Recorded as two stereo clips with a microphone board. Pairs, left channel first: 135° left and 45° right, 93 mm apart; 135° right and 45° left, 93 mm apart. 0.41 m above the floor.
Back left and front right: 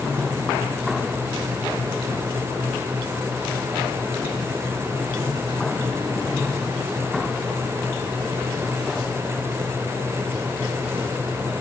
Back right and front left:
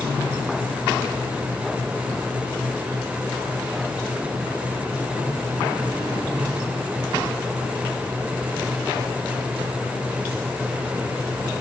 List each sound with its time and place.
Only background noise.